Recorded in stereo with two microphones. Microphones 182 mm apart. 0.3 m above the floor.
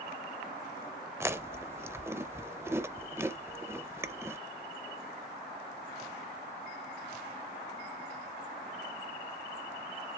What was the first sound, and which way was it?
Chewing, 15° right (ahead or behind).